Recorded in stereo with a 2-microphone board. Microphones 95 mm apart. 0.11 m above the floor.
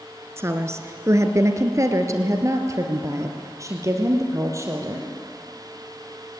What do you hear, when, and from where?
0.4 s a woman speaking: 30° right (ahead or behind), 1.3 m; by 5.1 s 35° right (ahead or behind), 3 m